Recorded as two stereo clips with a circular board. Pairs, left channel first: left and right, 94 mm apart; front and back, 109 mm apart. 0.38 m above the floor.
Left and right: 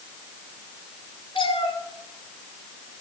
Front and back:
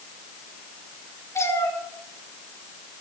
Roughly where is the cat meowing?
Ahead left.